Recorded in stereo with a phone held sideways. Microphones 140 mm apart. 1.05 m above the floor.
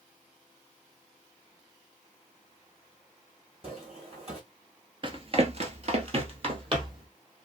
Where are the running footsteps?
35° right (ahead or behind), 1.4 m.